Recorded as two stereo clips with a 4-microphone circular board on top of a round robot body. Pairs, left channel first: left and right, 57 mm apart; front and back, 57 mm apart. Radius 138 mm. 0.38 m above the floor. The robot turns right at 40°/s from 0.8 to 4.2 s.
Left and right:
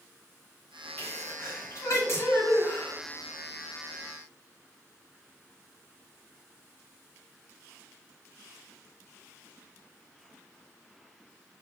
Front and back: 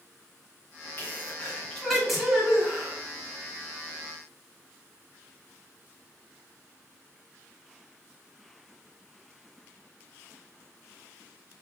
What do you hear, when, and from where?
1.0 s a sneeze: 45° left, 2.5 m; by 3.0 s 125° left, 2.5 m